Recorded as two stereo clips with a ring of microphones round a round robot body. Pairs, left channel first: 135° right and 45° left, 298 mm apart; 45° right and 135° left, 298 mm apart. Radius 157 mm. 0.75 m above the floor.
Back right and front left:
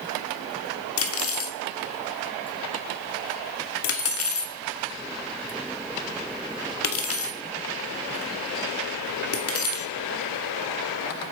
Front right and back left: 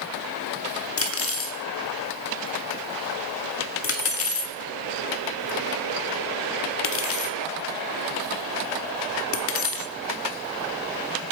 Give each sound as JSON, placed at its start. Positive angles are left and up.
{"t": 1.0, "sound": "cutlery clinking", "azimuth_deg": -90, "distance_m": 1.3}